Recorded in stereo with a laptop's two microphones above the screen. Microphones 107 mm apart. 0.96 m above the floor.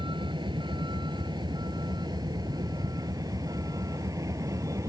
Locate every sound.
0.0 s a vehicle: 50° right (ahead or behind); by 4.9 s 30° right (ahead or behind)